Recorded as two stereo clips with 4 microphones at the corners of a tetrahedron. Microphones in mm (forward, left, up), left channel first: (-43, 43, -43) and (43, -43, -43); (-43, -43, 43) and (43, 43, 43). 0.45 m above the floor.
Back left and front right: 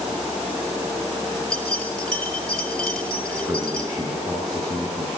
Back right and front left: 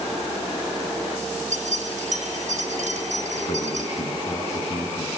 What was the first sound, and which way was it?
Keys jangling, 50° left.